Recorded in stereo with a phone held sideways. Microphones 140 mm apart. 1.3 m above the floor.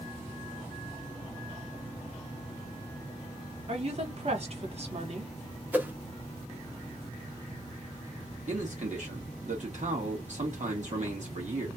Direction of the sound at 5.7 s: 10° right (ahead or behind).